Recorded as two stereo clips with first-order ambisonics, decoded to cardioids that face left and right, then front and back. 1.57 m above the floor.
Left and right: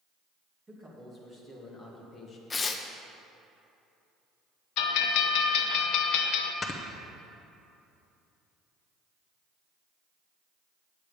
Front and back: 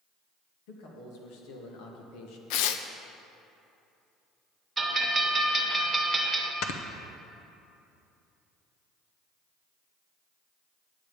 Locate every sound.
0.7 s a man speaking: 10° right, 2.5 m; by 2.4 s 25° left, 1.3 m
2.5 s tearing paper: 15° left, 0.5 m
4.8 s a bell: 105° left, 0.7 m
6.6 s snoring: 20° left, 0.7 m